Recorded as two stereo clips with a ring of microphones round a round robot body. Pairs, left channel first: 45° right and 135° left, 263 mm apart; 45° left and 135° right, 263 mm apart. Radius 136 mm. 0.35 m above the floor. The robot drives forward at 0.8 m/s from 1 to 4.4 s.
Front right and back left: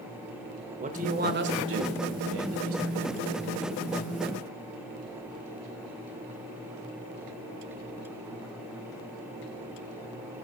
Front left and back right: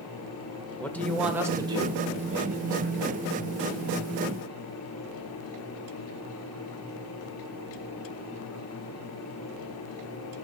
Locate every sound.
0.8 s a man speaking: 125° left, 0.9 m; by 3.4 s 170° left, 2.5 m